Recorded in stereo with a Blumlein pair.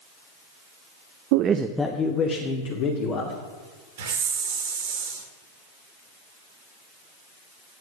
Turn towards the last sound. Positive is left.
turn(degrees=-60)